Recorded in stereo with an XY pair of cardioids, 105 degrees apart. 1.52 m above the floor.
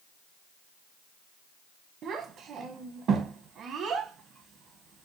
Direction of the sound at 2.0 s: 65° right.